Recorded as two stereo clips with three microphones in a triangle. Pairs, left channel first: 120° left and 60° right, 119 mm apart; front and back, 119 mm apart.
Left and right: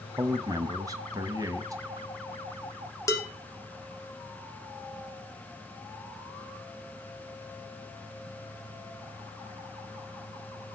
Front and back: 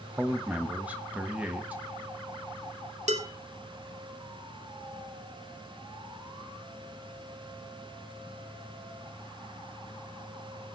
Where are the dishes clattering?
175° right, 3 m.